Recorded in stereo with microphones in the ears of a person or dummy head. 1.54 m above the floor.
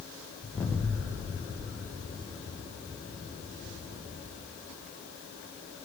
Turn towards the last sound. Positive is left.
turn(degrees=10)  # may be behind; listen again after turning